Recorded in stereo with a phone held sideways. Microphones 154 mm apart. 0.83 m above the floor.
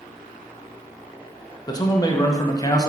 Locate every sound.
1.7 s a man speaking: 25° left (ahead or behind), 0.5 m